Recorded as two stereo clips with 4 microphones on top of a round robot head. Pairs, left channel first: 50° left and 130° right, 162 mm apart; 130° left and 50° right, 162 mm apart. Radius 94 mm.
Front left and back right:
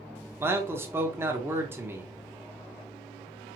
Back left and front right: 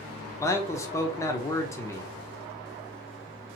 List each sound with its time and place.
0.4 s a man speaking: 175° left, 0.9 m